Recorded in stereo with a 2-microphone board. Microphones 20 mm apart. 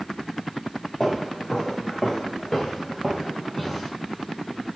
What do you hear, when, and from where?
1.0 s footsteps: 5° left (ahead or behind), 1.7 m; by 3.9 s 10° left (ahead or behind), 1.6 m